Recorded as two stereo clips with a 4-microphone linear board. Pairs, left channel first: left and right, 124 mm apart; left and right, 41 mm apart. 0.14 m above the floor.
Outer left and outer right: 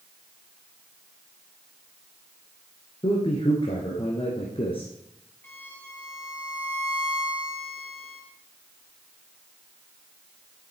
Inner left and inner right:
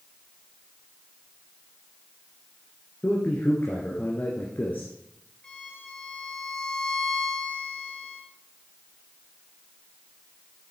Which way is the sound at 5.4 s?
15° left (ahead or behind).